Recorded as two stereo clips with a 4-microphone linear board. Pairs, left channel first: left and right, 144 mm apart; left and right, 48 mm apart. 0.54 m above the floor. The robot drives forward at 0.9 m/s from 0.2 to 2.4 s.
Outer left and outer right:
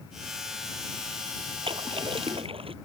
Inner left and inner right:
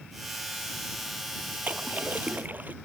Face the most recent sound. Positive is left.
turn(degrees=-40)  # may be behind; listen again after turning